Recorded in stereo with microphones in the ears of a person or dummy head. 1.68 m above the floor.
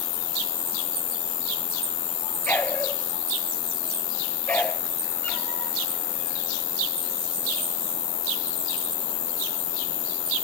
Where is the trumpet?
No trumpet in this recording.